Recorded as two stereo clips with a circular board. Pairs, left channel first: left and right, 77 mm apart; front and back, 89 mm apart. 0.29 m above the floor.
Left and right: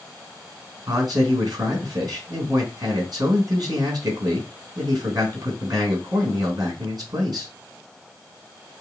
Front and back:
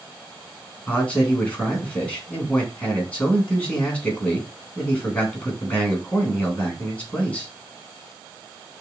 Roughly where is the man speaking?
Right.